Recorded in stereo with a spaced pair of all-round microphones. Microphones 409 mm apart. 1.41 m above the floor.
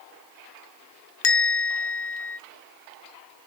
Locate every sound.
1.2 s a bell: 80° left, 0.5 m